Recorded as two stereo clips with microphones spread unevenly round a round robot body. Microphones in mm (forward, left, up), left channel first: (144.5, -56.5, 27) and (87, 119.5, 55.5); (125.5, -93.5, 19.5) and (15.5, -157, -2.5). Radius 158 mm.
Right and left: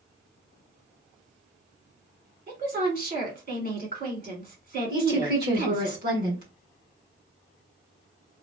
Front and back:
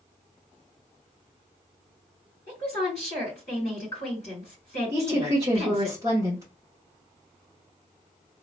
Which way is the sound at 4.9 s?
145° left.